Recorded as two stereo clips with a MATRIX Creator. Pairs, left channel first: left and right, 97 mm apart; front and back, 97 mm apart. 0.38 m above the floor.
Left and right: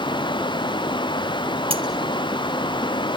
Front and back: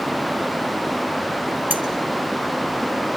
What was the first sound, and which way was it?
Cutlery clinking, 110° right.